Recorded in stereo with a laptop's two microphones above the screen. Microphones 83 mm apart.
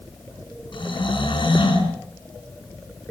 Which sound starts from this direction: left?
Snoring, at 0.7 s.